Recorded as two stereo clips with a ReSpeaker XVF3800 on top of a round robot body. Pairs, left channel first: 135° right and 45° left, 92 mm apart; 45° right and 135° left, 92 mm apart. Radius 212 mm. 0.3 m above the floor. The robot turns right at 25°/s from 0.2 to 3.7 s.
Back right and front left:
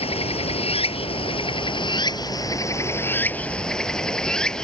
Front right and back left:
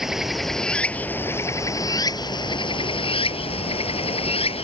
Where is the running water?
140° right; by 4.6 s 50° right.